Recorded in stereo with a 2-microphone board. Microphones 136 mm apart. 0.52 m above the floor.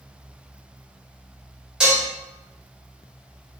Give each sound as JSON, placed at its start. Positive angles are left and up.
{"t": 1.8, "sound": "dishes clattering", "side_deg": -5, "distance_m": 1.5}